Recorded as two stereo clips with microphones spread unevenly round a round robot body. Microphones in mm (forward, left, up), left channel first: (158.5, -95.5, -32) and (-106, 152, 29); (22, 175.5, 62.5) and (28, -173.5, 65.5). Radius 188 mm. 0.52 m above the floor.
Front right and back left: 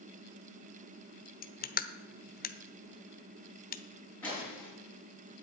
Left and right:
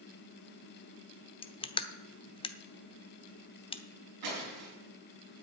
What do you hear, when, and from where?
1.4 s crushing: 15° left, 0.9 m
4.2 s breaking glass: 130° right, 5.5 m